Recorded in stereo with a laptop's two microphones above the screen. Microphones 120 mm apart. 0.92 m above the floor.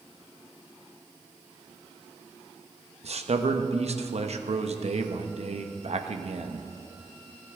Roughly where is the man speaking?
Right.